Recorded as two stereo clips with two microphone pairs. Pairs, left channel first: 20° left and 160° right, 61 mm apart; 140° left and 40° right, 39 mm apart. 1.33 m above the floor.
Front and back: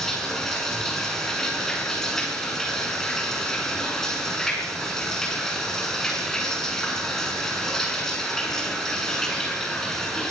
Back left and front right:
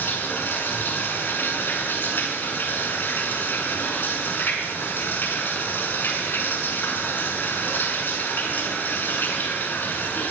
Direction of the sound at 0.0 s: 105° left.